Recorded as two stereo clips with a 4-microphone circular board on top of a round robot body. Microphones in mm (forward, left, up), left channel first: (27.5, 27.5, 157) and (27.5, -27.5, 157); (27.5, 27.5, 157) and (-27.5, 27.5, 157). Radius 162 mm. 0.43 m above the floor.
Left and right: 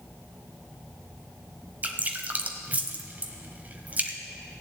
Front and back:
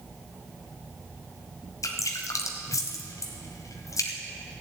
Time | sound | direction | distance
1.8 | dripping | 25° right | 0.8 m